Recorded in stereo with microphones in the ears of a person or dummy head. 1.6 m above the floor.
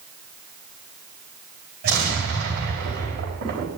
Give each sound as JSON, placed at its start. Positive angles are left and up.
{"t": 1.8, "sound": "an explosion", "side_deg": -55, "distance_m": 5.0}